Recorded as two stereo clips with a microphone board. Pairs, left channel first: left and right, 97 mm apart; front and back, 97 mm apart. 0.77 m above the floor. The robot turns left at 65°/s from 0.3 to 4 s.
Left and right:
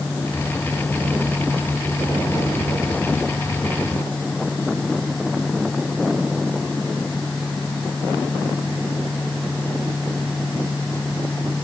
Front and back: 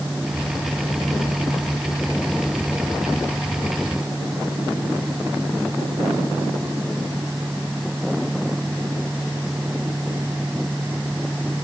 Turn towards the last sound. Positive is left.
No sound to turn to.